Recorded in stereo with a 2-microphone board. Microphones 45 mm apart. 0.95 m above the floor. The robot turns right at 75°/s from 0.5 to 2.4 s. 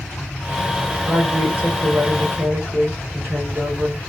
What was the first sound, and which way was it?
A woman speaking, straight behind.